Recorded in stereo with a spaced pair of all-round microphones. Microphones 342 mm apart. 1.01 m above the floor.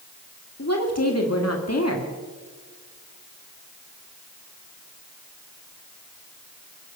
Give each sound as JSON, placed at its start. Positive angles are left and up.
{"t": 0.6, "sound": "a woman speaking", "side_deg": 45, "distance_m": 1.8}